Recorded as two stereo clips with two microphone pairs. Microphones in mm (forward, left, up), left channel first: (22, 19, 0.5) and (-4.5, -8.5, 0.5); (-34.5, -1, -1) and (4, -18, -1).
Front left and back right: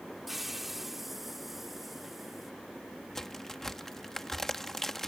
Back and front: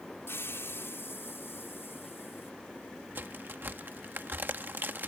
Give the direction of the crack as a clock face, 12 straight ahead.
1 o'clock.